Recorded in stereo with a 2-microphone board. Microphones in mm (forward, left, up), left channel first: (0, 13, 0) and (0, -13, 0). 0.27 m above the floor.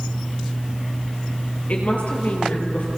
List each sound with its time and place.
1.7 s a woman speaking: 60° left (ahead or behind), 5 m; by 2.9 s 65° left (ahead or behind), 5.5 m